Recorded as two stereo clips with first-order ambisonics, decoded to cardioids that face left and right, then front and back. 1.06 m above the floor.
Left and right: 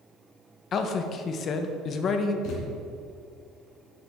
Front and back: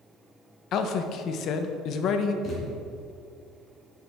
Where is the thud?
60° left, 3 m.